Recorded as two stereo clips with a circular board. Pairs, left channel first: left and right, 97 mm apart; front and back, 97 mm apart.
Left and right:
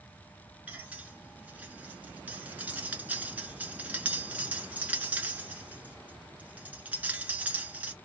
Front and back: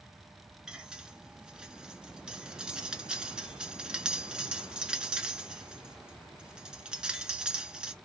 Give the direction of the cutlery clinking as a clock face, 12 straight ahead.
4 o'clock.